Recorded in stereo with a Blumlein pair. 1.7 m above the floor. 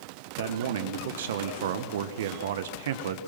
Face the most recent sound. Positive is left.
turn(degrees=-60)